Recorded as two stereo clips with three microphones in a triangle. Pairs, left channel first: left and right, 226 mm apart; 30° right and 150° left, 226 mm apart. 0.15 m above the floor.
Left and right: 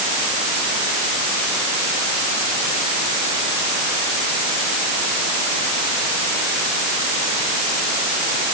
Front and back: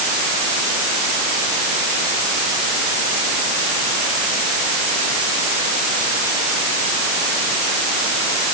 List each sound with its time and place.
Only background noise.